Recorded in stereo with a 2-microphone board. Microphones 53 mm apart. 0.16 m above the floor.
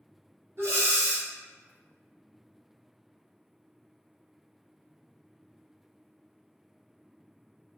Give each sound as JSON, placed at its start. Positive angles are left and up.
{"t": 0.6, "sound": "breathing", "side_deg": -50, "distance_m": 1.2}